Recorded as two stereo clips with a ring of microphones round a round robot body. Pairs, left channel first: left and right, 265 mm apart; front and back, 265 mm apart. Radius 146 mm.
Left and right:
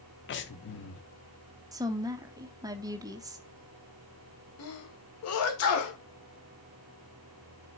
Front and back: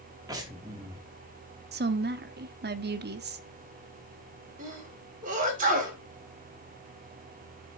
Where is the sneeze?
120° left, 2 m.